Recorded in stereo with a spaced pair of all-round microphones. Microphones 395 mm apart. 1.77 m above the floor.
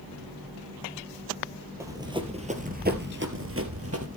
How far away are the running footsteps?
About 2.5 m.